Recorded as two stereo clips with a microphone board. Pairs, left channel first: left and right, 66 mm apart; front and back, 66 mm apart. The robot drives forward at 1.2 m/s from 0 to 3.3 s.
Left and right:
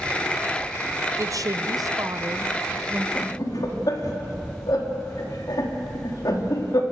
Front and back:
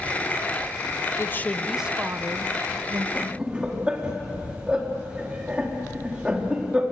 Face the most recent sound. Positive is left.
turn(degrees=105)